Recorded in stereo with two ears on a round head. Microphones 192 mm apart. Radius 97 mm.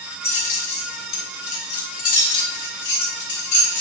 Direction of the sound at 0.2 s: 30° left (ahead or behind).